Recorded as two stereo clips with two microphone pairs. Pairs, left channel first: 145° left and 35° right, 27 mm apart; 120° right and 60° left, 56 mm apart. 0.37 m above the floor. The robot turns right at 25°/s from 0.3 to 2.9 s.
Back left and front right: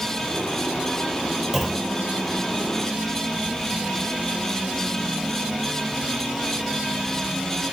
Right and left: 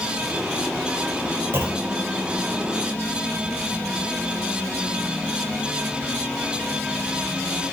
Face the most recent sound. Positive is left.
turn(degrees=90)